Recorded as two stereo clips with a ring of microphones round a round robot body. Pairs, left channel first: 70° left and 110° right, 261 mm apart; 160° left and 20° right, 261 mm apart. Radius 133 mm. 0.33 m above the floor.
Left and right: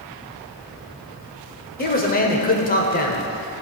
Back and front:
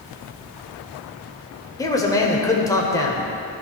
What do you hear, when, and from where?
1.8 s a man speaking: 90° left, 0.9 m